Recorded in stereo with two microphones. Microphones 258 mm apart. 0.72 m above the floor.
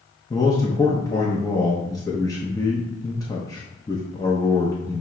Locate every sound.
0.3 s a man speaking: 15° left (ahead or behind), 0.5 m